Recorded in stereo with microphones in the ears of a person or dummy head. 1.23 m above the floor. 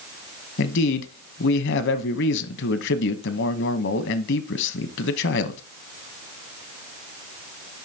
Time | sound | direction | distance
0.6 | a man speaking | 70° left (ahead or behind) | 0.9 m